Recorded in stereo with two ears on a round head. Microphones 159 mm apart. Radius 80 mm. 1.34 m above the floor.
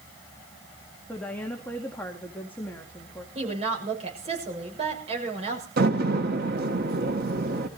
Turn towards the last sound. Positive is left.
turn(degrees=-60)  # may be behind; listen again after turning